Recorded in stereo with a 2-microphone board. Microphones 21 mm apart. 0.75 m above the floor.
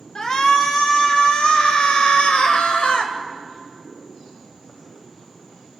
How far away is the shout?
About 2.5 m.